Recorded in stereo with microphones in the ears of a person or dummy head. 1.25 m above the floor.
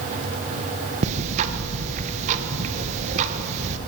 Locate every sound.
1.0 s ticking: 40° right (ahead or behind), 1.1 m